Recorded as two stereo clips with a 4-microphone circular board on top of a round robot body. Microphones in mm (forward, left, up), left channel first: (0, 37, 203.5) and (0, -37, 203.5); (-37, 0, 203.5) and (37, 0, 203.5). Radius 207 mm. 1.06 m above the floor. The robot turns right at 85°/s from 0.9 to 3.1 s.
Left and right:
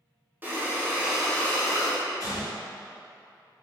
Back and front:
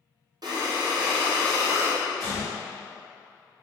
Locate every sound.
0.4 s breathing: 25° right, 0.8 m; by 2.0 s 70° left, 0.8 m
2.2 s a gunshot: 40° left, 1.8 m; by 2.5 s 70° left, 1.8 m